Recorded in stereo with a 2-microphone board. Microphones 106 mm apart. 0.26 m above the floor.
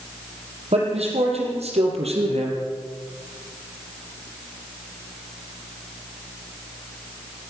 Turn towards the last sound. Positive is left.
turn(degrees=-80)